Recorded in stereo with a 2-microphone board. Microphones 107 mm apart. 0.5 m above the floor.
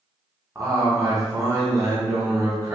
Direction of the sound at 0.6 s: 30° right (ahead or behind).